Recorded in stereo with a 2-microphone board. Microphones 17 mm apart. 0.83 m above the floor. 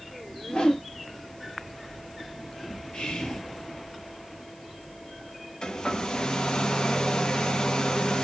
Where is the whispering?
65° left (ahead or behind), 2 m.